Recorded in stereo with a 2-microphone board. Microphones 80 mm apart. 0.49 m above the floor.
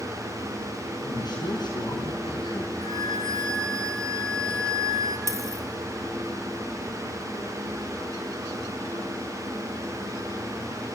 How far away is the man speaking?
About 5 m.